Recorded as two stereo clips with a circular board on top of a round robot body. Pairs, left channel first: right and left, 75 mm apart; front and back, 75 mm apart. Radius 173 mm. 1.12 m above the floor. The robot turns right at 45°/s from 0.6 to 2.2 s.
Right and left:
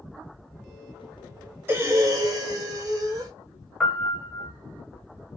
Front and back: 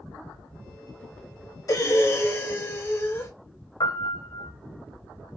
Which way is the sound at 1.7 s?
30° left.